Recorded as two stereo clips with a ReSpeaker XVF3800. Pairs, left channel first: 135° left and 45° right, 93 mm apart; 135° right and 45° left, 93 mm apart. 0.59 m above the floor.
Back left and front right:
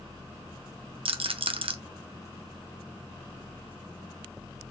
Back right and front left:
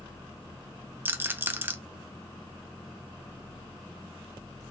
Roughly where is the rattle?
Ahead.